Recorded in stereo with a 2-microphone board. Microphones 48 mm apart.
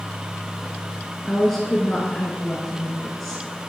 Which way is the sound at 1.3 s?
5° left (ahead or behind).